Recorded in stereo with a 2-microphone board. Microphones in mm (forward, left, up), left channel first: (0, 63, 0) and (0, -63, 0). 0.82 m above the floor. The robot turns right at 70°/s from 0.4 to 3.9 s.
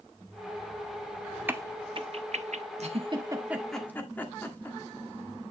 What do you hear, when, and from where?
1.5 s a crack: 15° right (ahead or behind), 0.6 m; by 2.6 s 65° right (ahead or behind), 0.6 m
2.8 s a giggle: 60° right (ahead or behind), 1.3 m; by 4.8 s 15° left (ahead or behind), 1.3 m